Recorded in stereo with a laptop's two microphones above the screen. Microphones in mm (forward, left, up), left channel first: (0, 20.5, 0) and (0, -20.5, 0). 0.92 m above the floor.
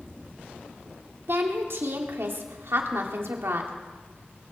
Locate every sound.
1.3 s a woman speaking: 70° right (ahead or behind), 2.5 m